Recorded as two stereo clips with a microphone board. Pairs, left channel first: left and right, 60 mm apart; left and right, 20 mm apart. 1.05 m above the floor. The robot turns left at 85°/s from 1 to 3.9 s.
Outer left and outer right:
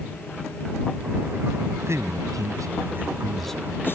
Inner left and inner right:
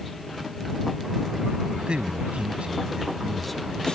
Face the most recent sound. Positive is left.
turn(degrees=140)